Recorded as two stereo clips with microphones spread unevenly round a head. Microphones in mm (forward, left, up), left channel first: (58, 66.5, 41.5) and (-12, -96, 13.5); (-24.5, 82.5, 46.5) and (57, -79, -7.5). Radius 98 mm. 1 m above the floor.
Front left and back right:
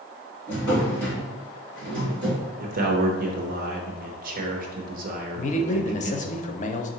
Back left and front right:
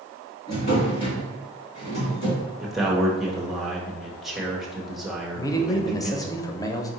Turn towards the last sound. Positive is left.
turn(degrees=35)